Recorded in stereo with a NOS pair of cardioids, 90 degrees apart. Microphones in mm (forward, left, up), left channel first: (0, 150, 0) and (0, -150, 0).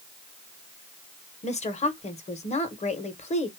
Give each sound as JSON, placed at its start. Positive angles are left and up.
{"t": 1.4, "sound": "a woman speaking", "azimuth_deg": 25, "distance_m": 1.1}